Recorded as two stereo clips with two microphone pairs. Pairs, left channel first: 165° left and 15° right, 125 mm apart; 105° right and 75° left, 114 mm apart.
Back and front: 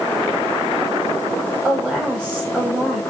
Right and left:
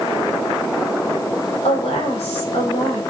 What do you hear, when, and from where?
1.6 s a woman speaking: 95° right, 5 m